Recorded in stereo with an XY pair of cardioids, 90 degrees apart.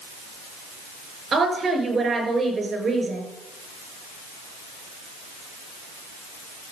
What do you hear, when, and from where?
1.3 s a woman speaking: 40° right, 5.5 m